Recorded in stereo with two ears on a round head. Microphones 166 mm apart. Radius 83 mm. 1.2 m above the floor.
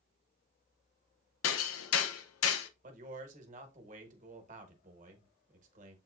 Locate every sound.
1.4 s hammering: 85° left, 0.6 m
2.8 s a man speaking: 45° right (ahead or behind), 1.1 m